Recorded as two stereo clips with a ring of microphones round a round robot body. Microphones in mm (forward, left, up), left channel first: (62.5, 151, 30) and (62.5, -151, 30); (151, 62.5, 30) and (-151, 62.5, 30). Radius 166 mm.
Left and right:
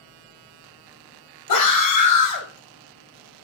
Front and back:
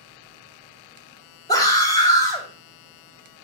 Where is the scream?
80° left, 4.5 m.